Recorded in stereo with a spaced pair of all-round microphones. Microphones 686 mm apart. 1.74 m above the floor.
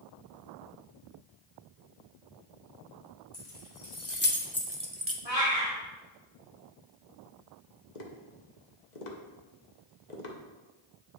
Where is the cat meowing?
55° left (ahead or behind), 2.5 m.